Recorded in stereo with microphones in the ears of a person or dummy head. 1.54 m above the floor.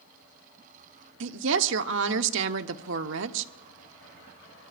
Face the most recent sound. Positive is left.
turn(degrees=-70)  # may be behind; listen again after turning